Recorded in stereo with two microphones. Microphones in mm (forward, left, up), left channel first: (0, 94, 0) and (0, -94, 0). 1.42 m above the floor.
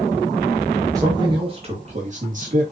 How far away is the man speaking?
About 1.9 m.